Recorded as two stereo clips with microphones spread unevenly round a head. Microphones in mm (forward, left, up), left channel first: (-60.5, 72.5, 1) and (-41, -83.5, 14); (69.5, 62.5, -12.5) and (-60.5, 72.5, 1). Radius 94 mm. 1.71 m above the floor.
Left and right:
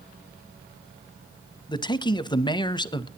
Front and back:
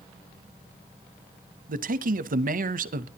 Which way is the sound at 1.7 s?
160° left.